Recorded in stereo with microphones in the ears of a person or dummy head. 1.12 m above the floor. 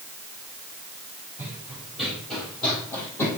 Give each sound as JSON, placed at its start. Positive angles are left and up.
{"t": 1.4, "sound": "running footsteps", "side_deg": -10, "distance_m": 2.5}